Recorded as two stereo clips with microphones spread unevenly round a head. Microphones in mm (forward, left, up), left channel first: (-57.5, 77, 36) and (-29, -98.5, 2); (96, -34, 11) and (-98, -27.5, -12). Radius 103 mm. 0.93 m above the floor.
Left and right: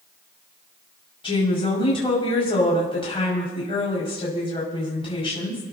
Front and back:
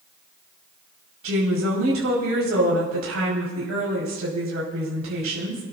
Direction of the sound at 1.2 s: 160° left.